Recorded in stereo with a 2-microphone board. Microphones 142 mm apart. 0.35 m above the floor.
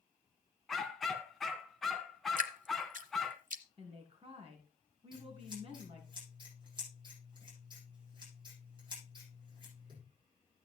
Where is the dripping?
65° right (ahead or behind), 1.0 m.